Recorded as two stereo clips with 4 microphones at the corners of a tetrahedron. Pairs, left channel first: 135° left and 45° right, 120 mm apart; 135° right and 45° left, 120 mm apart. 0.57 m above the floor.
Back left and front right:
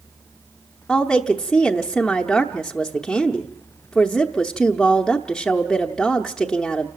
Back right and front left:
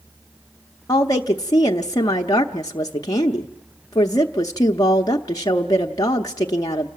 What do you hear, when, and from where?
0.9 s a woman speaking: 145° right, 0.7 m